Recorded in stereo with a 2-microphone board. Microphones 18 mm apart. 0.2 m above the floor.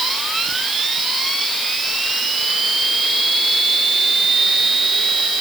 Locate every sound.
Only background noise.